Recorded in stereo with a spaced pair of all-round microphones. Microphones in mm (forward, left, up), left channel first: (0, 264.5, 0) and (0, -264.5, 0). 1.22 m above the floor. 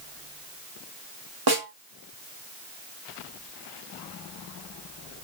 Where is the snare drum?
45° right (ahead or behind), 1.8 m.